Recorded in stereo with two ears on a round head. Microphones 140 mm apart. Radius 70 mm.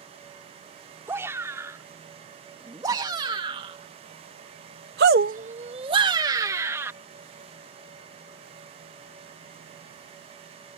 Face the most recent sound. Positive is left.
turn(degrees=-15)  # may be behind; listen again after turning